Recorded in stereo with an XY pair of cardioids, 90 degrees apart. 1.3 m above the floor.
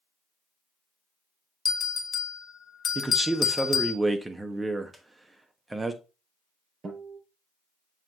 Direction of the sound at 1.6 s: 45° left.